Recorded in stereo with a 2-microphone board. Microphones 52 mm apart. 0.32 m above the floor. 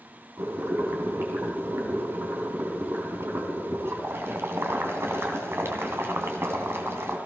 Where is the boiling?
55° right (ahead or behind), 3 m.